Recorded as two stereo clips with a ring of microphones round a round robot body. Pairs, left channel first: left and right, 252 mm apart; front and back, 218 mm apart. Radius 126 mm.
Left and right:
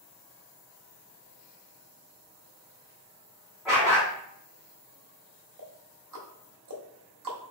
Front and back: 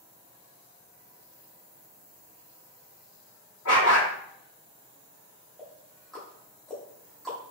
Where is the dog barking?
Straight ahead, 2.0 m.